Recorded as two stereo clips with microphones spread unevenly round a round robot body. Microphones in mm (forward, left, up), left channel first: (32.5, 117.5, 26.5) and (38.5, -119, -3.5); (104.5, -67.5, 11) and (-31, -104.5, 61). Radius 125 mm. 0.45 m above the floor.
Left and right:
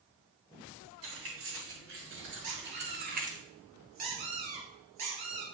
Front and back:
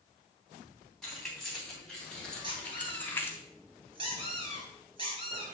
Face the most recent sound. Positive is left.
turn(degrees=-115)